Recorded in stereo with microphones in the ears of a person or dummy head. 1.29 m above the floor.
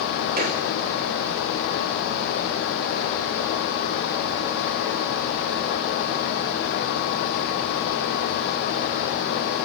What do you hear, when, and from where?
0.4 s a gunshot: 45° right (ahead or behind), 3.5 m